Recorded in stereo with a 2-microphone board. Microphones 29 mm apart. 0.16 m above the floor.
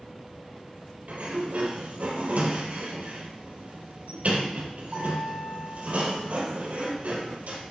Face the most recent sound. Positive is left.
turn(degrees=-55)  # may be behind; listen again after turning